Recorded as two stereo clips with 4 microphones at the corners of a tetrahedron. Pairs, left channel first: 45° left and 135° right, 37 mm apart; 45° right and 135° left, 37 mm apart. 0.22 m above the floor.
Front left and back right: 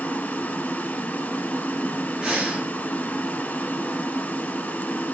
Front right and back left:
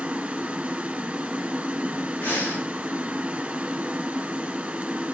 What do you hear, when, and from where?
0.0 s running water: 80° left, 1.3 m
2.2 s breathing: 50° right, 3 m